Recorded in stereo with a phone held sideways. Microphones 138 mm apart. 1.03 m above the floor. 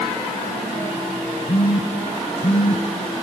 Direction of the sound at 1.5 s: 50° left (ahead or behind).